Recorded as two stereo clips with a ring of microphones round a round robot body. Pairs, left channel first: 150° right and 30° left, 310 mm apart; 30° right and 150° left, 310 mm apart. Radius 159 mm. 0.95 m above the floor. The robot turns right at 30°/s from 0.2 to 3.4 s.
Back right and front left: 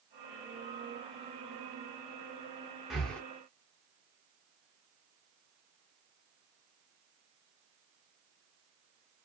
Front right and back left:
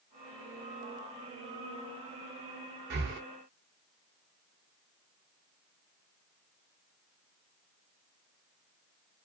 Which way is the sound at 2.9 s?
120° left.